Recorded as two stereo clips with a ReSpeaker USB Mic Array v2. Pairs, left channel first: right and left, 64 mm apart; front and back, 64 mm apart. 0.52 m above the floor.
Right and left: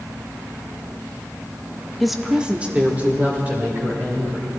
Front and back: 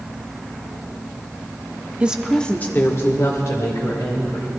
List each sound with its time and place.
2.0 s a woman speaking: 175° right, 0.7 m; by 4.5 s 30° left, 2.5 m